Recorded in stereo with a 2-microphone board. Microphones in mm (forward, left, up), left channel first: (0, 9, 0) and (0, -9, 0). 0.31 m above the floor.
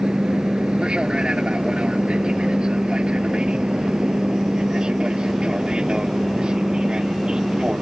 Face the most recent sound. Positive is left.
turn(degrees=-50)  # may be behind; listen again after turning